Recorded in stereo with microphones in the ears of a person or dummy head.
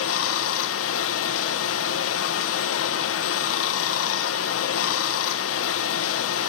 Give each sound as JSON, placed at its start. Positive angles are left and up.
{"t": 0.0, "sound": "running water", "side_deg": 85, "distance_m": 0.9}